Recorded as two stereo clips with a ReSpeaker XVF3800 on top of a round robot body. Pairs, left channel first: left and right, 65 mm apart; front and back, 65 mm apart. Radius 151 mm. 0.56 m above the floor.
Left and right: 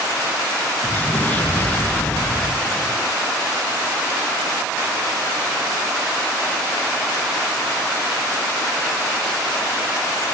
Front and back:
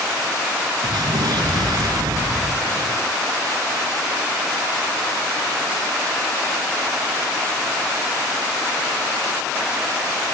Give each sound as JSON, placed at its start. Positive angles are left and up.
{"t": 0.8, "sound": "an explosion", "azimuth_deg": 160}